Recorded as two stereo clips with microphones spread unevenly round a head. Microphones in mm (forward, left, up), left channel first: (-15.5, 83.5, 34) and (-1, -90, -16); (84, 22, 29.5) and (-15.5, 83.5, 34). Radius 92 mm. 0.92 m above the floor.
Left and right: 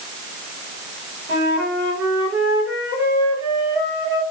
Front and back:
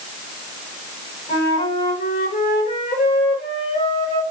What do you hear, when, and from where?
1.3 s a flute: 75° right, 3.5 m